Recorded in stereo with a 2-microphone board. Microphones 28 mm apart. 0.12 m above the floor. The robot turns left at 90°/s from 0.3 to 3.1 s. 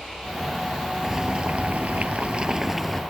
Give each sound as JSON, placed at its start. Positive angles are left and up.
{"t": 1.0, "sound": "boiling", "azimuth_deg": -15}